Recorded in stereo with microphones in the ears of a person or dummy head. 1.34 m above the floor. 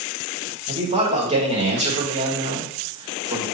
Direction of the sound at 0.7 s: 35° right (ahead or behind).